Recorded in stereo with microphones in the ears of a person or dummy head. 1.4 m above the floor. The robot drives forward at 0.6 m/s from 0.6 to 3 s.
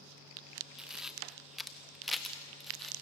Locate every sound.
0.8 s a camera shutter: 5° right (ahead or behind), 0.6 m; by 2.9 s centre (ahead or behind), 1.8 m